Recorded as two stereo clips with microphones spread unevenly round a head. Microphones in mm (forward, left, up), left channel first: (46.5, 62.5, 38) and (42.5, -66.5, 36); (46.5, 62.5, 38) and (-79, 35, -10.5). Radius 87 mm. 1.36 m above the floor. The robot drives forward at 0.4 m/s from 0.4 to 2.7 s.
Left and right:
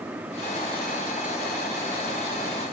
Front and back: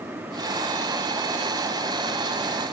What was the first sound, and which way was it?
Only background noise.